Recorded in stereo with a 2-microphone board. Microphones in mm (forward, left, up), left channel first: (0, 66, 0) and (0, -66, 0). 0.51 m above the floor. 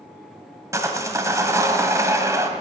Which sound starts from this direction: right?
Sawing, at 0.7 s.